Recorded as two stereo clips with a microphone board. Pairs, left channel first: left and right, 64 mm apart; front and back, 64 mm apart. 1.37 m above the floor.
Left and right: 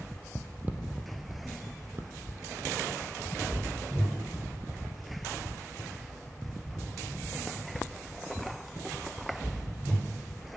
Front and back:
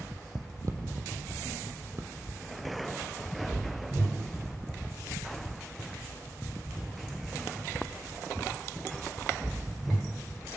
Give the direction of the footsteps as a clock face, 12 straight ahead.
5 o'clock.